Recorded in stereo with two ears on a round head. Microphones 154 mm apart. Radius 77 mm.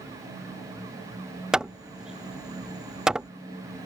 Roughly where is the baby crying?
I don't hear a baby crying.